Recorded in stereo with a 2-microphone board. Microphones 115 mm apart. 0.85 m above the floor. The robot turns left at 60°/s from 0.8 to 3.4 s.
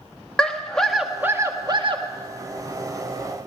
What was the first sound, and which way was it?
A scream, 10° left.